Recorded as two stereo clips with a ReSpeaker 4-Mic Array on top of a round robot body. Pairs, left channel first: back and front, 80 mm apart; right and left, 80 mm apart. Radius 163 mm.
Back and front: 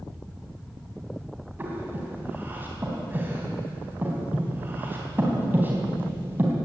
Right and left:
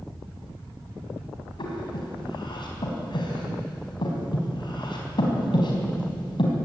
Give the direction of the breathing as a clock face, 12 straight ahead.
2 o'clock.